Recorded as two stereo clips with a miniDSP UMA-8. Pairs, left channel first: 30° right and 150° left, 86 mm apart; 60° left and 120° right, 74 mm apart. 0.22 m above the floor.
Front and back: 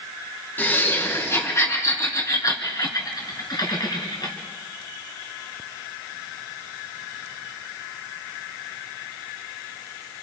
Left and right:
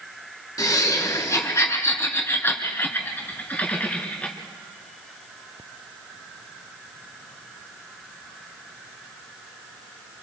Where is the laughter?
30° left, 3 m; by 4.3 s 10° right, 3.5 m.